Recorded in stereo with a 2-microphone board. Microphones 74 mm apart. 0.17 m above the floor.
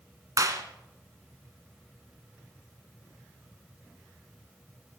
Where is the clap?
50° right (ahead or behind), 1.4 m.